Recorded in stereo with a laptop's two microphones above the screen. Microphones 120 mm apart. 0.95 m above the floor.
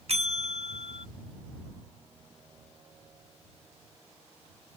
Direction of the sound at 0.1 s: 60° right (ahead or behind).